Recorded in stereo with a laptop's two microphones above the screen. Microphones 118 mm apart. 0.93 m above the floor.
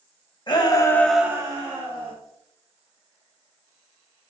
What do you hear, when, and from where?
0.5 s a shout: 40° left (ahead or behind), 1.3 m; by 2.1 s 50° right (ahead or behind), 1.6 m